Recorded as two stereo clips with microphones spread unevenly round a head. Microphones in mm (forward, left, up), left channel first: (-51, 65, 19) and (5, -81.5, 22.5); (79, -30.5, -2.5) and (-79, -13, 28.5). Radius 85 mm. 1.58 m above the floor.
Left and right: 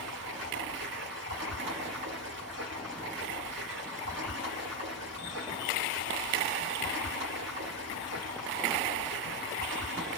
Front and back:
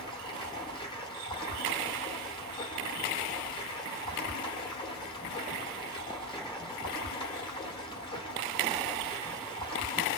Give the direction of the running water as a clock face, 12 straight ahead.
2 o'clock.